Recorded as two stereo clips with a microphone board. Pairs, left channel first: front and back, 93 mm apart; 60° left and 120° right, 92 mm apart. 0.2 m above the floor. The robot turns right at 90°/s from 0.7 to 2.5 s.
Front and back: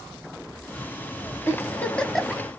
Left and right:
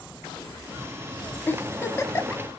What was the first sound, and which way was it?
A giggle, 20° left.